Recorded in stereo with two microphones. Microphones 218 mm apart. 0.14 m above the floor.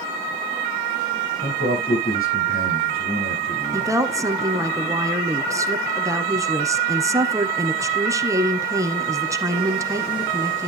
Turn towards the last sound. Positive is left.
turn(degrees=-15)  # may be behind; listen again after turning